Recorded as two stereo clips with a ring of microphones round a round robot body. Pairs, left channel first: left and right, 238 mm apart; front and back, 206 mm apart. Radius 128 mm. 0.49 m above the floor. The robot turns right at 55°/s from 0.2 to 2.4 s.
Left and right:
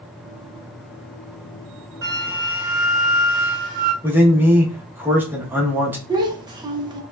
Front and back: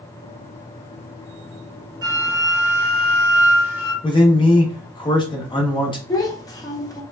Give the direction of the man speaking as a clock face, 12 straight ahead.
1 o'clock.